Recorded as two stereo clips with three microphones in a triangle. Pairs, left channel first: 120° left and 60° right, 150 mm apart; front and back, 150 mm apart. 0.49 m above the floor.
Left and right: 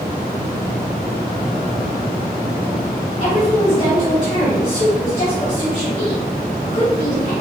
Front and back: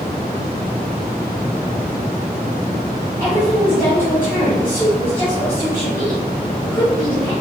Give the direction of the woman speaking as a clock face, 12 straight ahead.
10 o'clock.